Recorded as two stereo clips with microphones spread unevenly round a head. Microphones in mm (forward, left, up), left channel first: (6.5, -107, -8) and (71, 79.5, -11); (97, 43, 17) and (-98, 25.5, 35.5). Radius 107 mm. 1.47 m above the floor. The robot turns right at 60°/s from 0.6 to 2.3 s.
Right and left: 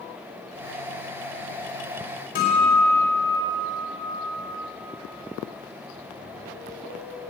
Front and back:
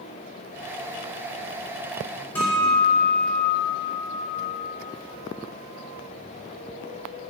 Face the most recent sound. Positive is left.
turn(degrees=-75)